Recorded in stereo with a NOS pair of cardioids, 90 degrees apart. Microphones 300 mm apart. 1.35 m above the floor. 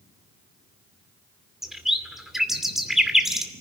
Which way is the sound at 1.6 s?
Straight ahead.